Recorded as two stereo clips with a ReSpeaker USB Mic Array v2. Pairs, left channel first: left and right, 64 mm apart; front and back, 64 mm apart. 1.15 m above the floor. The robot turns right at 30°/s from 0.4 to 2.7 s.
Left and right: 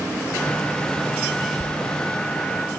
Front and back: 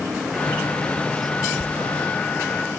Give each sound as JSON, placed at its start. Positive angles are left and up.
{"t": 1.6, "sound": "a squeak", "azimuth_deg": 155, "distance_m": 0.8}